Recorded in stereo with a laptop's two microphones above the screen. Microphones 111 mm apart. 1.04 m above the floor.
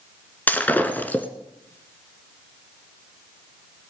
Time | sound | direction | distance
0.5 | breaking glass | 15° left (ahead or behind) | 1.3 m